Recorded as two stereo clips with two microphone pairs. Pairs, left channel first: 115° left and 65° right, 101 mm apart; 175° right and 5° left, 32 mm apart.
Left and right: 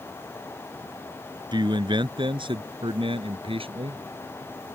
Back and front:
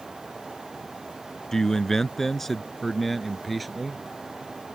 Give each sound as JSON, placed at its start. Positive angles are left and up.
{"t": 1.5, "sound": "a man speaking", "azimuth_deg": -100}